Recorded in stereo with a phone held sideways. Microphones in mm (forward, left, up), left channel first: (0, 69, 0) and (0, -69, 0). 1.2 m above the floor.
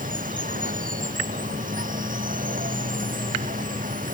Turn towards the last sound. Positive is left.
turn(degrees=-80)